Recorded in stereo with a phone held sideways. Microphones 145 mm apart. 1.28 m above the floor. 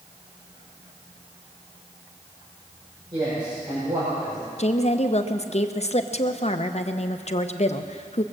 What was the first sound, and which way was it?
A man speaking, 30° right (ahead or behind).